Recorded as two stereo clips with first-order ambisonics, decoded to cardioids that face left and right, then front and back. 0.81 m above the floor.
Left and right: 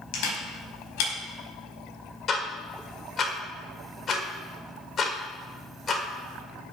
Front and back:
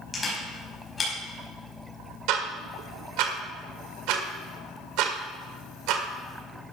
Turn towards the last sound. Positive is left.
turn(degrees=155)